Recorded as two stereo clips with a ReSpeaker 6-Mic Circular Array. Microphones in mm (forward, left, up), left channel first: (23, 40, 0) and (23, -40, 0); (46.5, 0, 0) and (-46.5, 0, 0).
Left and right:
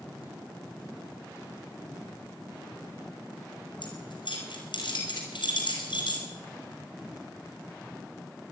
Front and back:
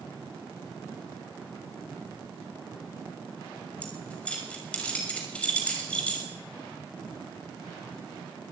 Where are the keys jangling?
75° left, 5.5 m.